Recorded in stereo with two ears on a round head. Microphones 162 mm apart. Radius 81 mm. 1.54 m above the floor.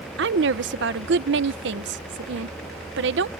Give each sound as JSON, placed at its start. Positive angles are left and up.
{"t": 0.2, "sound": "a woman speaking", "side_deg": -70}